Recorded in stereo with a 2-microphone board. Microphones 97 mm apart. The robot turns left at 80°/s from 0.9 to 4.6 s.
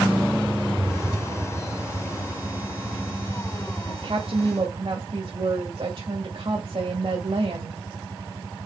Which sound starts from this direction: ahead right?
A woman speaking, at 3.9 s.